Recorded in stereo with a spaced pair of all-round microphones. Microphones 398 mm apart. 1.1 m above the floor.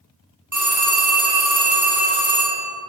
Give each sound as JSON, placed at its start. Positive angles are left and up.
{"t": 0.5, "sound": "a phone ringing", "side_deg": -45, "distance_m": 1.3}